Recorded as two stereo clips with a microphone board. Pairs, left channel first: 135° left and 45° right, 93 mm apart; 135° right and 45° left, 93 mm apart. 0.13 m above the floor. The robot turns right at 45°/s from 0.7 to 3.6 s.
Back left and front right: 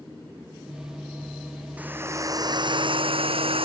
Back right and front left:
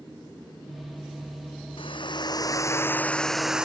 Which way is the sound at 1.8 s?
120° right.